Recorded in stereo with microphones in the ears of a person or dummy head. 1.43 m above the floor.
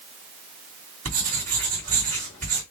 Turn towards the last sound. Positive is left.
turn(degrees=-40)  # may be behind; listen again after turning